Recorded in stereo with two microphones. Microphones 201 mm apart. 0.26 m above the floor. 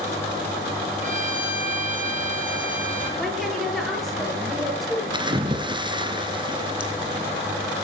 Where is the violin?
40° right (ahead or behind), 10 m.